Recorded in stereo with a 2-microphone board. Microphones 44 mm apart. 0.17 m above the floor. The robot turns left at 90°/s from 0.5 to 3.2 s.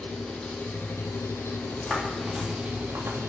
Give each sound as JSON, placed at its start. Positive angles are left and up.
{"t": 0.0, "sound": "an engine running", "azimuth_deg": 160, "distance_m": 1.9}
{"t": 1.6, "sound": "footsteps", "side_deg": 30, "distance_m": 3.0}